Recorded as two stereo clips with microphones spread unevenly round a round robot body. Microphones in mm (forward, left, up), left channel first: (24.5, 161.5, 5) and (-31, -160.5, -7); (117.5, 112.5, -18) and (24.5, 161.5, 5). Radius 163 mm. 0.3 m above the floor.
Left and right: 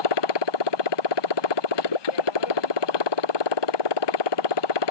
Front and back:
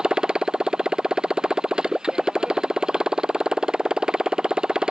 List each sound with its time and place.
0.0 s a motorcycle: 70° left